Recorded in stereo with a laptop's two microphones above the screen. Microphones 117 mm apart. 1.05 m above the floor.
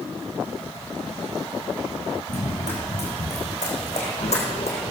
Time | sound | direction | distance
2.3 | running footsteps | 75° left (ahead or behind) | 5 m